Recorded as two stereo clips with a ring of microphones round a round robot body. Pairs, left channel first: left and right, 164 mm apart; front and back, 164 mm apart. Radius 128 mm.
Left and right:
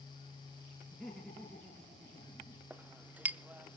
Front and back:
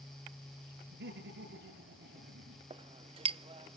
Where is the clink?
165° right, 0.6 m.